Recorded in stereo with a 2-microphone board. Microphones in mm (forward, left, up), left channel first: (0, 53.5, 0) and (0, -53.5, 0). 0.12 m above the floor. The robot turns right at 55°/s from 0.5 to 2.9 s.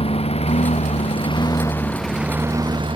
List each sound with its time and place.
0.0 s a lawn mower: 65° left (ahead or behind); by 3.0 s 55° right (ahead or behind)